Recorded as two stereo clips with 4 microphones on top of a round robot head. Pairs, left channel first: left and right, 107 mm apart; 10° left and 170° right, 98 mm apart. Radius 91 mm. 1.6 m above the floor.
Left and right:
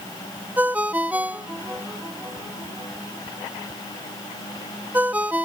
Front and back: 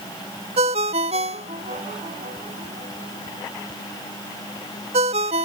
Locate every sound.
0.6 s a ringtone: 170° right